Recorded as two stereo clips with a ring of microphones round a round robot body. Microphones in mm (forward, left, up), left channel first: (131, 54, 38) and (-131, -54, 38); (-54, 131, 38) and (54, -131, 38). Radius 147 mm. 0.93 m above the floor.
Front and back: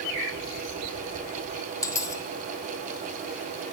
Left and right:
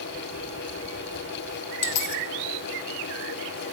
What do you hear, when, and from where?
1.8 s a dropped coin: 100° left, 1.8 m